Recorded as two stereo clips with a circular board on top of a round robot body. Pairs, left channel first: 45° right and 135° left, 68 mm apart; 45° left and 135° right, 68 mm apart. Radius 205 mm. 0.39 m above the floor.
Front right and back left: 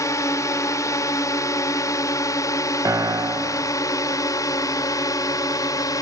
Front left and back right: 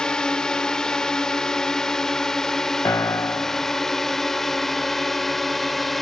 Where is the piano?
95° left.